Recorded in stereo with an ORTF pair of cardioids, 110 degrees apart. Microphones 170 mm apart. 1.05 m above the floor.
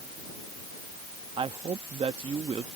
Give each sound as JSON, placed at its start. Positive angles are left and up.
{"t": 1.4, "sound": "a woman speaking", "azimuth_deg": -35}